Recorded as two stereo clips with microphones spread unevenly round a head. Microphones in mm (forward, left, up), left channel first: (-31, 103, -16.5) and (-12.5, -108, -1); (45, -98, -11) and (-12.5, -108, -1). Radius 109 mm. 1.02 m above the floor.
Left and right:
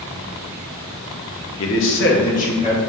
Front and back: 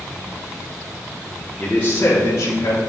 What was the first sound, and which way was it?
A man speaking, 95° left.